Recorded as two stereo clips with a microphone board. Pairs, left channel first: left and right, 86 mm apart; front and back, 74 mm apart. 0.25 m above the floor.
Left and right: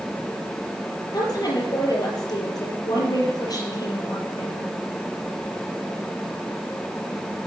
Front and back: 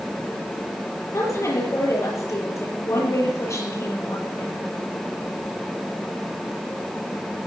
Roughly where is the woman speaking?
Ahead left.